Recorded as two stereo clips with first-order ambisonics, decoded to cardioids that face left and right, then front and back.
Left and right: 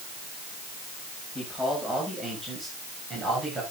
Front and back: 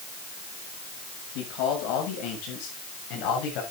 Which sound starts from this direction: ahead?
A man speaking, at 1.4 s.